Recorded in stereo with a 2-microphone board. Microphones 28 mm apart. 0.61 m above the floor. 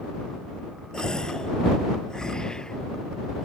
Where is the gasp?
25° left (ahead or behind).